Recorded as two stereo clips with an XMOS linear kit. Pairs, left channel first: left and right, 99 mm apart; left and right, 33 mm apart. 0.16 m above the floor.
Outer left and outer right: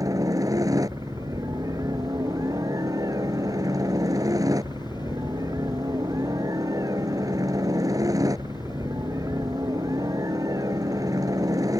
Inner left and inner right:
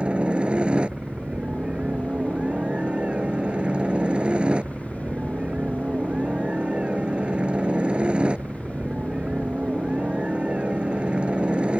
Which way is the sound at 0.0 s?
35° right (ahead or behind).